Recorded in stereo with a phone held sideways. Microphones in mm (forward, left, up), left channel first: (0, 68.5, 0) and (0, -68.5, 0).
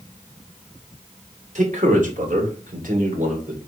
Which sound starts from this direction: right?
A man speaking, at 1.6 s.